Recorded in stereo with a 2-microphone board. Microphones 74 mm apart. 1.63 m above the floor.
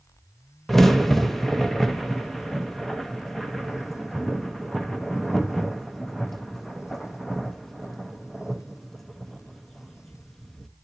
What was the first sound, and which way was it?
A crack, 5° left (ahead or behind).